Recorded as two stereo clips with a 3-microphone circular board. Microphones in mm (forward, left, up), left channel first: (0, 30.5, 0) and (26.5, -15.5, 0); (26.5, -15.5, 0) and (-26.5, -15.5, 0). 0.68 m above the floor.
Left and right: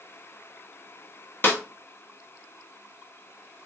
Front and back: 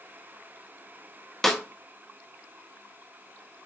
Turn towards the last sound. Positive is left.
turn(degrees=85)